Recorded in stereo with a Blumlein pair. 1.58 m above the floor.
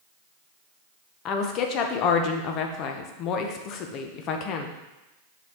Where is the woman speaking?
35° left, 0.9 m.